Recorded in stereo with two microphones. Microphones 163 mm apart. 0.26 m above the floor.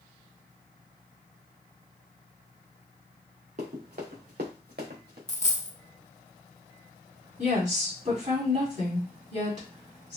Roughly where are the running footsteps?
Right.